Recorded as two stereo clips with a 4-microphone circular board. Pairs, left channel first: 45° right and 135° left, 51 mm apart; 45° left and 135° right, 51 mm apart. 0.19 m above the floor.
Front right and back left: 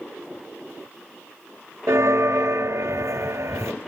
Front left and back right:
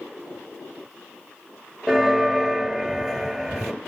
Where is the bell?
150° left, 1.2 m.